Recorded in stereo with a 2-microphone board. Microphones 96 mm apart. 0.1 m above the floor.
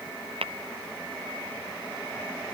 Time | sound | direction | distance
0.4 | tapping | 70° right (ahead or behind) | ?